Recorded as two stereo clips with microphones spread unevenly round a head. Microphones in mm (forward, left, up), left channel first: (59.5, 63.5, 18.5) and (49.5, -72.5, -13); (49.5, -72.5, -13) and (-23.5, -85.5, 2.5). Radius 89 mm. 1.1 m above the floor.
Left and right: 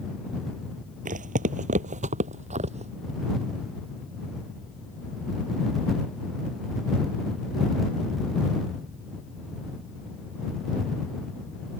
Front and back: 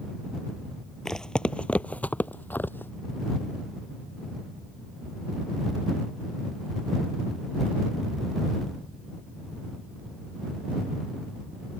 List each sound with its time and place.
1.1 s footsteps: 80° right; by 2.9 s 55° right